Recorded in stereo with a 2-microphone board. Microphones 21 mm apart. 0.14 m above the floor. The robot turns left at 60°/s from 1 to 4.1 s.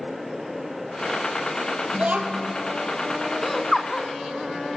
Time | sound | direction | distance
1.9 | a child speaking | 70° right | 2.5 m
3.4 | laughter | 5° left (ahead or behind) | 1.2 m